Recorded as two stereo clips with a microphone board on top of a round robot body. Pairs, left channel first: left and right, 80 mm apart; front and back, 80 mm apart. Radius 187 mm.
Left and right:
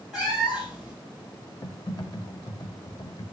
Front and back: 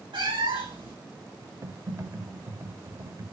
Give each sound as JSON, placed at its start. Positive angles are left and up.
{"t": 0.1, "sound": "a cat meowing", "azimuth_deg": -175, "distance_m": 3.0}
{"t": 1.6, "sound": "typing on a keyboard", "azimuth_deg": 130, "distance_m": 0.9}